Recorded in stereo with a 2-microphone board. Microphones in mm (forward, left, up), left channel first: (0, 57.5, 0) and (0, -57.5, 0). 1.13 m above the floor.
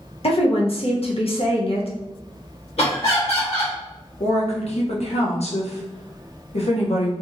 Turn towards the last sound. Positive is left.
turn(degrees=75)  # may be behind; listen again after turning